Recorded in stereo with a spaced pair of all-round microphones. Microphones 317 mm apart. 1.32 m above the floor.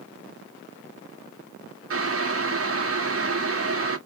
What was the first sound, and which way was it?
Boiling, 45° right (ahead or behind).